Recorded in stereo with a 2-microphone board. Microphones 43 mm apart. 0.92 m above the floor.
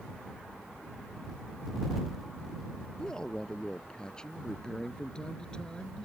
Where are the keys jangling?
No keys jangling in this recording.